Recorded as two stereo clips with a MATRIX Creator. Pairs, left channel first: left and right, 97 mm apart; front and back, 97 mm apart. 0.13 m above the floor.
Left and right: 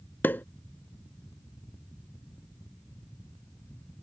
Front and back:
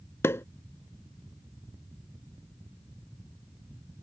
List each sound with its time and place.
0.2 s a pop: 35° left